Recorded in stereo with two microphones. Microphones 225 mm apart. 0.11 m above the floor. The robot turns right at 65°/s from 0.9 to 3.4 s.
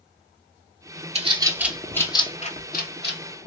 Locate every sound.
1.1 s a bird: 30° right (ahead or behind), 0.6 m; by 3.5 s 50° left (ahead or behind), 0.6 m